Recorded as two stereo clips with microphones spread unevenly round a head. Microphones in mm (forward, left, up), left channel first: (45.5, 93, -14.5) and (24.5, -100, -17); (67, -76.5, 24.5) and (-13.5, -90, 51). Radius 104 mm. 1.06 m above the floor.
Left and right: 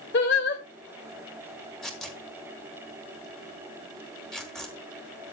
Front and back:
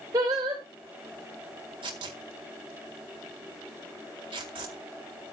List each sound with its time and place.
0.1 s singing: 125° left, 2.5 m
1.8 s tearing paper: 170° left, 1.6 m